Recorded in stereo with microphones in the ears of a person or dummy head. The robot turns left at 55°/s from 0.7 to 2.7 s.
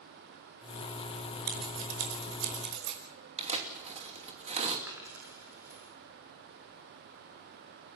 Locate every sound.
1.5 s scissors: 50° right (ahead or behind), 5 m; by 3.0 s 65° right (ahead or behind), 5 m
3.4 s tearing paper: 35° right (ahead or behind), 2.5 m
4.9 s a dropped coin: 15° right (ahead or behind), 3.5 m